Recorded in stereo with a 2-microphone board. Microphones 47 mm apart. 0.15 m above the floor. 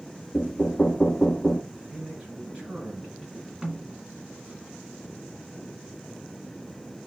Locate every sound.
0.3 s knocking: 20° left (ahead or behind), 0.9 m
1.7 s a man speaking: 25° right (ahead or behind), 2.5 m
3.6 s a snare drum: 10° right (ahead or behind), 1.6 m